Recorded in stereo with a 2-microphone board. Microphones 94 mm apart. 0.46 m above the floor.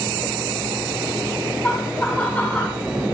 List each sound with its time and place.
1.6 s laughter: 20° left (ahead or behind), 3.5 m; by 2.8 s 15° left (ahead or behind), 2.5 m